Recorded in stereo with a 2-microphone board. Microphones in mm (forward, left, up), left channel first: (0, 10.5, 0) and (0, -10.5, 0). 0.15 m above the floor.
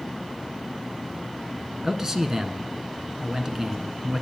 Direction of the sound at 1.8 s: 25° right (ahead or behind).